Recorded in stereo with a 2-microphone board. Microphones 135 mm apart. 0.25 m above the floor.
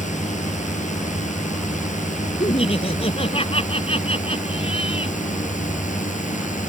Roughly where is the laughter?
Left.